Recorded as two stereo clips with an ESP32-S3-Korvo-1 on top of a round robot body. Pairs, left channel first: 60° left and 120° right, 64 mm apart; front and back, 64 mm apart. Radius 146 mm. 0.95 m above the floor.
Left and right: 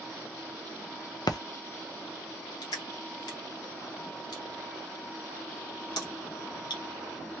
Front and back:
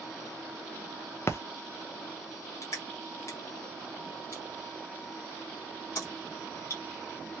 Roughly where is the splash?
Ahead left.